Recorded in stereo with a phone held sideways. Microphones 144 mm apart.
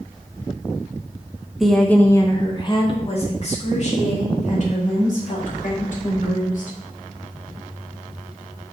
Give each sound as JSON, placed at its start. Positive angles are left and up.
{"t": 1.6, "sound": "a woman speaking", "side_deg": 0, "distance_m": 1.0}